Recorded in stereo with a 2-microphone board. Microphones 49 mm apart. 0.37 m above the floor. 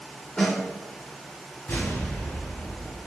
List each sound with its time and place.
0.4 s a snare drum: 20° left (ahead or behind), 1.1 m
1.7 s an explosion: 55° left (ahead or behind), 1.8 m